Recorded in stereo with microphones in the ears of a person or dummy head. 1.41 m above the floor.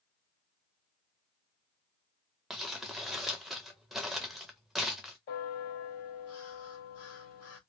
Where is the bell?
45° left (ahead or behind), 0.7 m.